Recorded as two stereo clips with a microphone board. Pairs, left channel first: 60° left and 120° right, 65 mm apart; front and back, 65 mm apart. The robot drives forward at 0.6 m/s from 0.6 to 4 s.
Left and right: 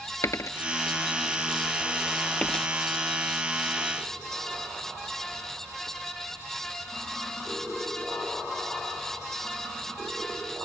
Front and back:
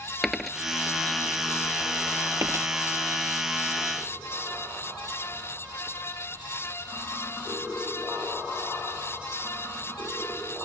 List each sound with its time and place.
0.2 s a dropped coin: 90° left; by 2.7 s 140° left